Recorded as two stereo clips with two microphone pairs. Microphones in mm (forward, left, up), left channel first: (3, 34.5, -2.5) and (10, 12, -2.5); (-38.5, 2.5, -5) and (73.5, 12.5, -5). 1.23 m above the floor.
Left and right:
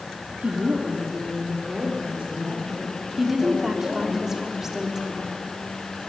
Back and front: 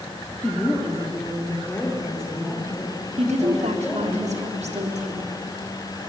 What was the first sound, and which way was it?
A woman speaking, 95° right.